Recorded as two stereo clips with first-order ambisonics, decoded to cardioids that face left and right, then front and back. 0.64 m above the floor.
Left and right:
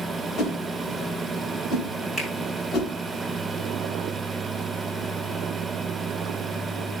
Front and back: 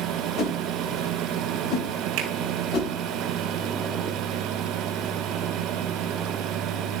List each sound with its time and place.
0.4 s a whoosh: 40° left, 2.5 m
2.2 s a finger snap: 175° left, 3.5 m